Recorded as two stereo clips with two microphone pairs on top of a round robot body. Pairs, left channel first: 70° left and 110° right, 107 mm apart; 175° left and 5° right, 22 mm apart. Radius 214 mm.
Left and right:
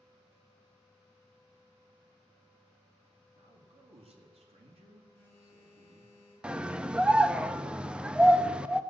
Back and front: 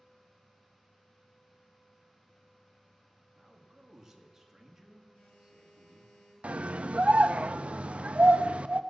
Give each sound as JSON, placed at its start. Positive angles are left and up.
{"t": 3.4, "sound": "a man speaking", "azimuth_deg": -80, "distance_m": 1.9}
{"t": 5.1, "sound": "a phone buzzing", "azimuth_deg": -160, "distance_m": 4.0}
{"t": 6.4, "sound": "a scream", "azimuth_deg": -25, "distance_m": 0.6}